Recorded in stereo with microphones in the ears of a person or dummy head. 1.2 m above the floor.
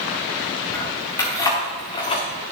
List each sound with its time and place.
0.7 s keys jangling: 10° left (ahead or behind), 2 m; by 2.3 s 30° left (ahead or behind), 1.4 m